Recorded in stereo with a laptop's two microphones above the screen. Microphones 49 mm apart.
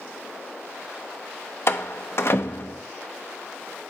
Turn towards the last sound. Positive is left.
turn(degrees=55)  # may be behind; listen again after turning